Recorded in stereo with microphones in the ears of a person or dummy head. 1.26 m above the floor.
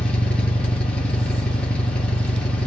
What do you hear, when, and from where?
0.0 s an engine running: 5° left (ahead or behind), 1.0 m